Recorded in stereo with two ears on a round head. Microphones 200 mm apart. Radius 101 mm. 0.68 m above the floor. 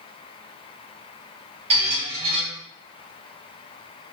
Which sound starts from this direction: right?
A squeak, at 1.7 s.